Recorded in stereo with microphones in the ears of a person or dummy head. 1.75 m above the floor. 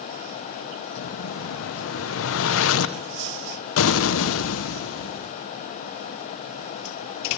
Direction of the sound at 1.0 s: 85° left.